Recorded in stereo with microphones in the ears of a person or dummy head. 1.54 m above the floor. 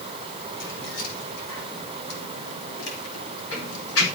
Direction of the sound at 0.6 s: 55° left (ahead or behind).